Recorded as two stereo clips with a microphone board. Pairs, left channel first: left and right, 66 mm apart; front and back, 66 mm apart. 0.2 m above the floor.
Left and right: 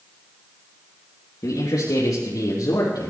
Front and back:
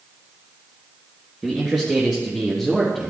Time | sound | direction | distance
1.4 | a man speaking | 100° left | 2.5 m